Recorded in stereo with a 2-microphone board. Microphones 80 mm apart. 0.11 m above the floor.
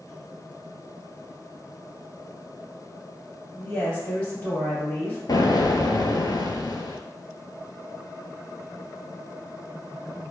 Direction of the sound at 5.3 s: 55° left (ahead or behind).